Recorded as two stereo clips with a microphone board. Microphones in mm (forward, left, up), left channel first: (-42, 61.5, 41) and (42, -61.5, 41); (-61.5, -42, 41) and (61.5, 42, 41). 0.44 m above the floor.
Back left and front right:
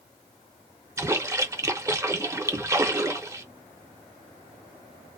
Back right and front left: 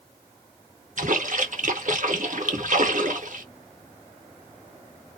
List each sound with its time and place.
1.0 s a splash: 15° left, 0.6 m